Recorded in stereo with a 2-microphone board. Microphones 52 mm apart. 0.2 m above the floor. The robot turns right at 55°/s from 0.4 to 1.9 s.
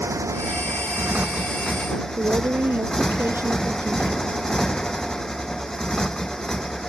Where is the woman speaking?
45° right (ahead or behind).